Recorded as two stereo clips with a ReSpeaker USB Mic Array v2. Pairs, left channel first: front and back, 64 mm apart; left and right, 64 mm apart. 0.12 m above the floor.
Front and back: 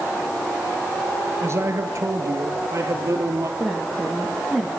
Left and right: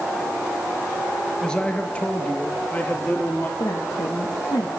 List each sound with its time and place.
1.4 s a man speaking: 165° left, 1.9 m; by 3.5 s 150° left, 3 m
3.6 s a woman speaking: 90° left, 4 m